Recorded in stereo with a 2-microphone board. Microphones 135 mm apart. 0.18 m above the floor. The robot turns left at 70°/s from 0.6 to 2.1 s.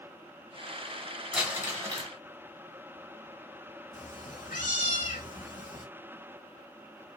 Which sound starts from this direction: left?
A cat meowing, at 3.9 s.